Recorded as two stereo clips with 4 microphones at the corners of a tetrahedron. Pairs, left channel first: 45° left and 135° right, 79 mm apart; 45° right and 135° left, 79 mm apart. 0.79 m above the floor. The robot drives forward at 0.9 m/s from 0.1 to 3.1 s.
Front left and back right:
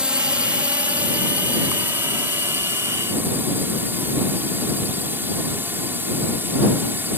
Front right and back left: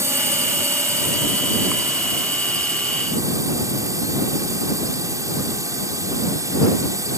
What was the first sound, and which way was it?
A drone, 155° left.